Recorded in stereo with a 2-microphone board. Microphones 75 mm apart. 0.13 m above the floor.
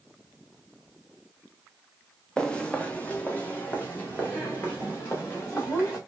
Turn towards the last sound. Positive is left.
turn(degrees=30)  # may be behind; listen again after turning